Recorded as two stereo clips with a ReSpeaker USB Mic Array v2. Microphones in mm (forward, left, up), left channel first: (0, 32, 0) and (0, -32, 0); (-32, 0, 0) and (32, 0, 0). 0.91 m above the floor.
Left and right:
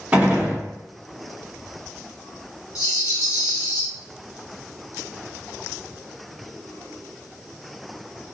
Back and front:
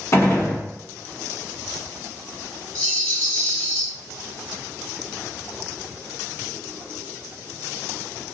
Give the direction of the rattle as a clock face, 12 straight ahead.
8 o'clock.